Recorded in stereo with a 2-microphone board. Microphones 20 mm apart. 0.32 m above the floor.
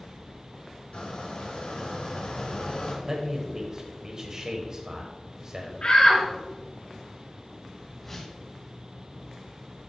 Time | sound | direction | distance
0.9 | a squeak | 65° left (ahead or behind) | 2.0 m
3.0 | a man speaking | 30° right (ahead or behind) | 1.2 m
5.8 | a shout | 60° left (ahead or behind) | 3.5 m
8.0 | a whoosh | 15° left (ahead or behind) | 2.5 m